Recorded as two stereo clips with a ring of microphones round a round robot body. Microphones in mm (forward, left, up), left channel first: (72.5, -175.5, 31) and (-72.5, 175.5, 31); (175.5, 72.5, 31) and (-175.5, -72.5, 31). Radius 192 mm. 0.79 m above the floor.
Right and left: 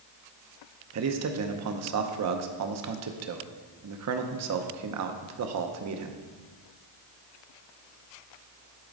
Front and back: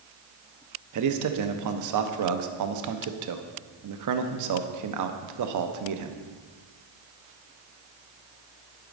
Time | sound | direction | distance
0.9 | a man speaking | 160° left | 0.8 m